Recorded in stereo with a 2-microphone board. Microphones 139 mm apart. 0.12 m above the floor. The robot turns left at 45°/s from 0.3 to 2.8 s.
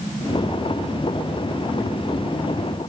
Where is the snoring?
No snoring in this recording.